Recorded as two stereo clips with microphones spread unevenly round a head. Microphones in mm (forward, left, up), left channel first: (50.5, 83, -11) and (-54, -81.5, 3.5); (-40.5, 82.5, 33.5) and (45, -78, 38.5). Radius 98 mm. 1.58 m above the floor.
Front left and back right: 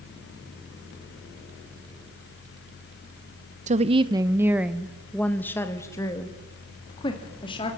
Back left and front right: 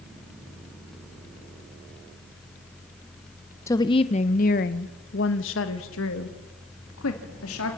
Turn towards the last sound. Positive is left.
turn(degrees=125)